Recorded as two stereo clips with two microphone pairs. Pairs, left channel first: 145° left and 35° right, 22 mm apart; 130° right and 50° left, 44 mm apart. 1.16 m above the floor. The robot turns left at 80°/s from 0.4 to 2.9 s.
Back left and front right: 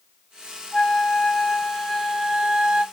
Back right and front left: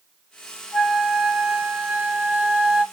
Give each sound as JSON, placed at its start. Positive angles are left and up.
{"t": 0.7, "sound": "a flute", "azimuth_deg": 140, "distance_m": 2.5}